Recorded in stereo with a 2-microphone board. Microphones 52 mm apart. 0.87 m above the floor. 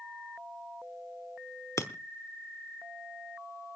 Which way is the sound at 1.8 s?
75° left (ahead or behind).